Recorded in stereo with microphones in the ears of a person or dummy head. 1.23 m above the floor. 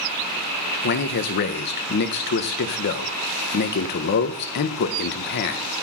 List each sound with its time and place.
0.8 s a man speaking: 60° left (ahead or behind), 0.5 m